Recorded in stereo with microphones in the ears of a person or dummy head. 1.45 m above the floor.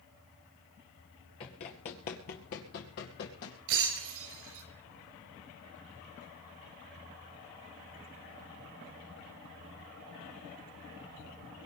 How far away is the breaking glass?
About 5 m.